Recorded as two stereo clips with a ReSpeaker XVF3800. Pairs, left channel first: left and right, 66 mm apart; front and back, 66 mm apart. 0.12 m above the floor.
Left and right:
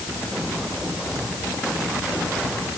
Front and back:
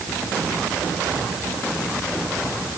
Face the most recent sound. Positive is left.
No sound to turn to.